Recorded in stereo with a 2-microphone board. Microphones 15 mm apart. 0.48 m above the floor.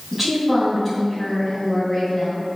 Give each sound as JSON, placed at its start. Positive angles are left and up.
{"t": 0.1, "sound": "a woman speaking", "side_deg": 0, "distance_m": 3.5}